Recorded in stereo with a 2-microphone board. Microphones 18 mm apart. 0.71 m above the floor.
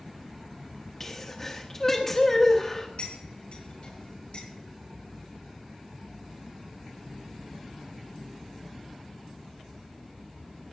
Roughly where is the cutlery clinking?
Left.